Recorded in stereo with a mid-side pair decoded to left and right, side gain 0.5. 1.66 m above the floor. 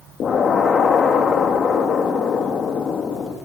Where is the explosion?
45° left, 4 m.